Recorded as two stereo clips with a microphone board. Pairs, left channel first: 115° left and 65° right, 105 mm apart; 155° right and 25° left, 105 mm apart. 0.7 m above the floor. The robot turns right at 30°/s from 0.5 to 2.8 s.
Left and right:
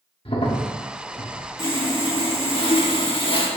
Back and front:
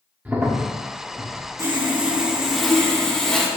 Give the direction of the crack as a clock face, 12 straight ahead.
9 o'clock.